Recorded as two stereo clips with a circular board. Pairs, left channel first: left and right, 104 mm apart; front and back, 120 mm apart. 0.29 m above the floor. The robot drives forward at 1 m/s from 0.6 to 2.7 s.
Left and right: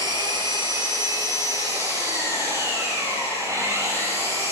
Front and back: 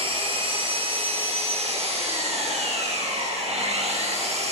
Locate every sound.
0.0 s an engine running: 140° right, 5 m; by 4.5 s 150° right, 7 m